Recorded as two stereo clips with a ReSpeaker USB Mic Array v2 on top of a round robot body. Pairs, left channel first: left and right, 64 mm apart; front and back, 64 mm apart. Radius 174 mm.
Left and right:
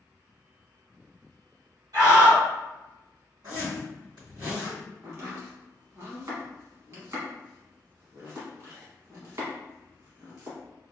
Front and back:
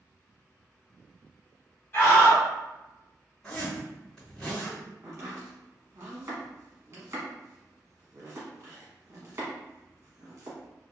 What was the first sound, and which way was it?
A scream, 65° right.